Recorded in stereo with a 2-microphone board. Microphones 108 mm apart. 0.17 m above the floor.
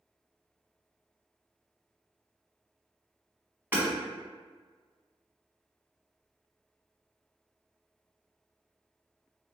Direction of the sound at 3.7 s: 20° right (ahead or behind).